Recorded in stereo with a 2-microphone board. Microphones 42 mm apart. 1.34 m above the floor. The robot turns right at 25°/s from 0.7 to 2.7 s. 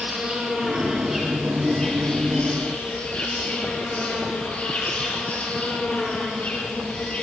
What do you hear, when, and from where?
0.0 s an insect: 20° right, 7.5 m; by 7.2 s 30° left, 7.5 m